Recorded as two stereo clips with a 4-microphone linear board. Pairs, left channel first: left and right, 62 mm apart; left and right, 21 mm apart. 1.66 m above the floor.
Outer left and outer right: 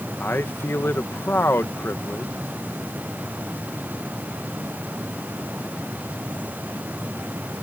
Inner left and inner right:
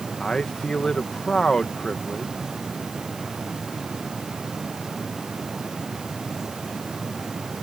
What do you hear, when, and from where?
0.2 s a man speaking: 40° left (ahead or behind)